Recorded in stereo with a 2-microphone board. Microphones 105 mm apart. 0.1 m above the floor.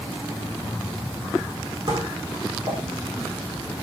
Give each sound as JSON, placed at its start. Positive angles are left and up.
{"t": 1.9, "sound": "dishes clattering", "side_deg": -55, "distance_m": 4.0}